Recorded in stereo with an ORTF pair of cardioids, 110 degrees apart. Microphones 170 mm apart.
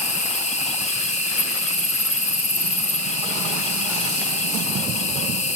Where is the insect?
40° left, 1.1 m.